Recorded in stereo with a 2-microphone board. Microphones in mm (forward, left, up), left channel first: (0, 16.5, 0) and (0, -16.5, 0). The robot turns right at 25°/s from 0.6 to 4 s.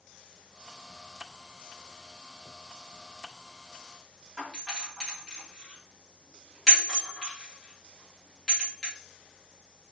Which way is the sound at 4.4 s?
Centre (ahead or behind).